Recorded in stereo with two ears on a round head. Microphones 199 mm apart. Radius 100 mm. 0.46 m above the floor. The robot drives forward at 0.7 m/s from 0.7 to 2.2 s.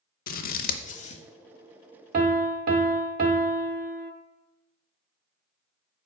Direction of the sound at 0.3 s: 45° left (ahead or behind).